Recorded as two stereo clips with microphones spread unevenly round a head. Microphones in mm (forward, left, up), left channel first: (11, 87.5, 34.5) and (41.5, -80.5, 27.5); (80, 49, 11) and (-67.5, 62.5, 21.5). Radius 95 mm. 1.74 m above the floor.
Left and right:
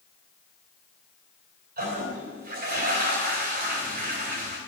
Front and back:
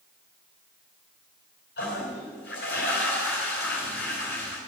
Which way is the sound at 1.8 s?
45° right.